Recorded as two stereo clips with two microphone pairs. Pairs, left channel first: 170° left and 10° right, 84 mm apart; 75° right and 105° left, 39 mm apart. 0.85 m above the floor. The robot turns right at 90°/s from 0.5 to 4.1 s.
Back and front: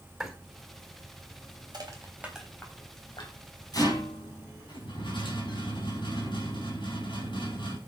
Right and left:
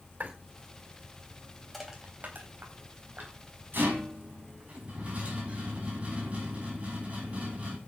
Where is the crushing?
15° left, 3.5 m; by 3.4 s 160° left, 3.5 m.